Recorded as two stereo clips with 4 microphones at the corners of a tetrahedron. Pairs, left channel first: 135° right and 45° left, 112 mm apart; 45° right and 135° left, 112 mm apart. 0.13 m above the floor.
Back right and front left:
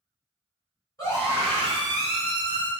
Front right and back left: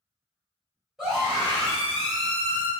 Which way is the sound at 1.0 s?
140° right.